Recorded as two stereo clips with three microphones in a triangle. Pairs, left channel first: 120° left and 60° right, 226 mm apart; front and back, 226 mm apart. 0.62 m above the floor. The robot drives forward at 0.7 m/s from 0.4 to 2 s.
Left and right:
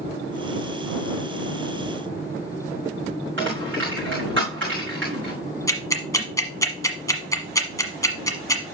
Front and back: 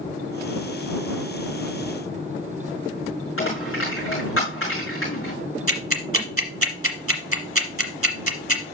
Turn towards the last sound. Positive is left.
turn(degrees=-165)